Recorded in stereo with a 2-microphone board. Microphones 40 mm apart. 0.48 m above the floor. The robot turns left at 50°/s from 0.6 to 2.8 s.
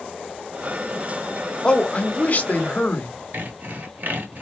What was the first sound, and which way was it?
A man speaking, 140° left.